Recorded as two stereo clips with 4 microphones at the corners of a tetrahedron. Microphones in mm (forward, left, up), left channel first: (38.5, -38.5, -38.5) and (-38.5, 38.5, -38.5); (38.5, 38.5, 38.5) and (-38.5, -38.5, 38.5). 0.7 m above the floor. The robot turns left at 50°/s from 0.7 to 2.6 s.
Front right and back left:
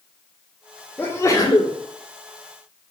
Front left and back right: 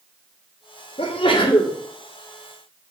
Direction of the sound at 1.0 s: 30° left.